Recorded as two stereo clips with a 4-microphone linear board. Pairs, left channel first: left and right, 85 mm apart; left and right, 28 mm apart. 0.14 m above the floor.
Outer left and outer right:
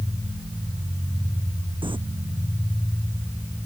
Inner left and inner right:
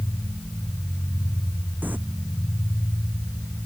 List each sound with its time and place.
1.8 s crumpling: 80° right